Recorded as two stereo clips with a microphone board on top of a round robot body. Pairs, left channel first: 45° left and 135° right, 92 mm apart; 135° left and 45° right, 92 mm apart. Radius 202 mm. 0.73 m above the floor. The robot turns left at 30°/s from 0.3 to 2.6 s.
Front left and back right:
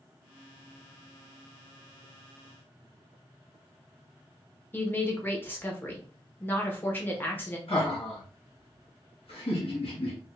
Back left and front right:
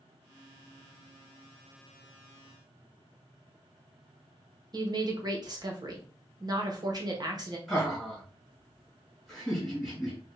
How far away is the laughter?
About 2 m.